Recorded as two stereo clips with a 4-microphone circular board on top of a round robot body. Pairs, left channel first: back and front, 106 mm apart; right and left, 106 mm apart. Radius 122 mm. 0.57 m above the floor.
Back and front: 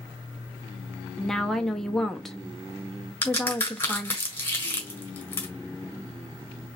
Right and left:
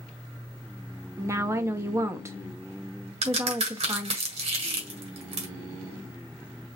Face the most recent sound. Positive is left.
turn(degrees=110)